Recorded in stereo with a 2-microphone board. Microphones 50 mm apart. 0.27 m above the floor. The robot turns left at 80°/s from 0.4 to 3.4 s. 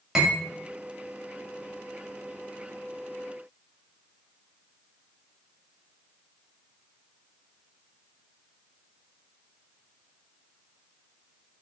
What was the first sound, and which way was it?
Cutlery clinking, 10° right (ahead or behind).